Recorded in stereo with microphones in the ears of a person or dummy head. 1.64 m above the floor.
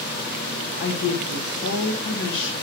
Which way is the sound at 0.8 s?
70° left (ahead or behind).